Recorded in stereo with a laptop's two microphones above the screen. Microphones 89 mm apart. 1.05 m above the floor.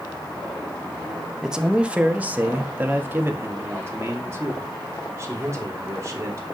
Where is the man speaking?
5° right (ahead or behind), 1.2 m; by 6.5 s 35° right (ahead or behind), 4 m.